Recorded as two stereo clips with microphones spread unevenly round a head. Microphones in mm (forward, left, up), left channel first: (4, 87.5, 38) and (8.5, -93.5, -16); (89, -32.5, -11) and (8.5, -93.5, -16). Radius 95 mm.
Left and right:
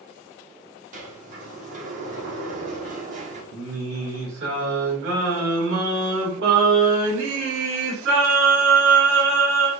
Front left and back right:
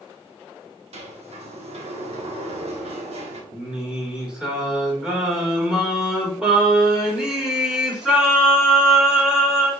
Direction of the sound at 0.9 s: 145° right.